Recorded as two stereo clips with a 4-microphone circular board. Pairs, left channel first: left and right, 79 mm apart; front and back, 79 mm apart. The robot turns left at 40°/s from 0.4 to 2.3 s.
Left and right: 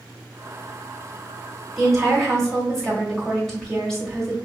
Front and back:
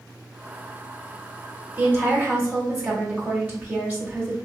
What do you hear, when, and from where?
1.8 s a woman speaking: 170° right, 1.1 m; by 4.3 s 170° left, 1.1 m